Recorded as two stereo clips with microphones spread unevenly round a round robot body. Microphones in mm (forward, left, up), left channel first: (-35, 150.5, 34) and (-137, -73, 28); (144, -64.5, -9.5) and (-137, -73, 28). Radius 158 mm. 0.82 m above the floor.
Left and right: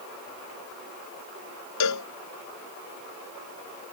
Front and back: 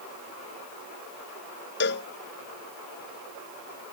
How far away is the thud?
No thud in this recording.